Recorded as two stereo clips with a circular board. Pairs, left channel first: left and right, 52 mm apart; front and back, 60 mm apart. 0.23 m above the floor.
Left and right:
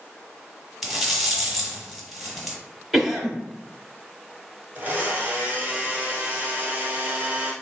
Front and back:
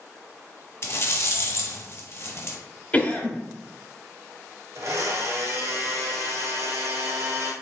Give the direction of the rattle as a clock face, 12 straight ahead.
12 o'clock.